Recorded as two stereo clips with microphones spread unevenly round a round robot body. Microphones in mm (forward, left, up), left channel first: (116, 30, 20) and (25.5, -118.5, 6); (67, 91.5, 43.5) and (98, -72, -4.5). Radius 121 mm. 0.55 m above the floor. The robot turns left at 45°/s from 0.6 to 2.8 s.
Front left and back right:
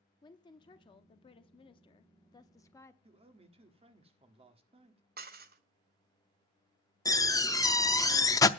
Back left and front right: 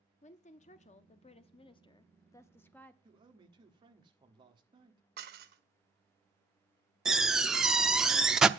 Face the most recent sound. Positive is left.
turn(degrees=-10)